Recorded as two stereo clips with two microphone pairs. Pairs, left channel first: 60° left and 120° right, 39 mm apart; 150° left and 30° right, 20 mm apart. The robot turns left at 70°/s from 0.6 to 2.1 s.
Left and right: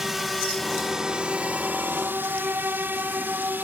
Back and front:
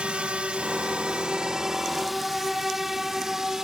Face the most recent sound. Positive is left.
turn(degrees=-95)